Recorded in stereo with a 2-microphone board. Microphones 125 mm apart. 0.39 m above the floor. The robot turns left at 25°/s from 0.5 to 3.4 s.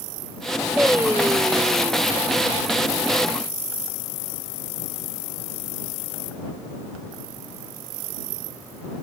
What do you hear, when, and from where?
0.8 s singing: 10° right; by 2.1 s 40° right